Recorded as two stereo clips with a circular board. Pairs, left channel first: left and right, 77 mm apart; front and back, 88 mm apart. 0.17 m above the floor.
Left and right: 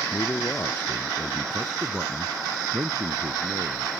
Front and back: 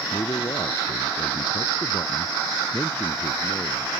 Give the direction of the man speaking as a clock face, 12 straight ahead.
11 o'clock.